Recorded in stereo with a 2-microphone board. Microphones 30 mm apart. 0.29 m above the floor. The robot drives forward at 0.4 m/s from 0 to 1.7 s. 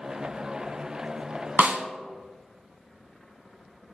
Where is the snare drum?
65° right (ahead or behind), 0.6 m; by 1.8 s 60° right (ahead or behind), 0.6 m.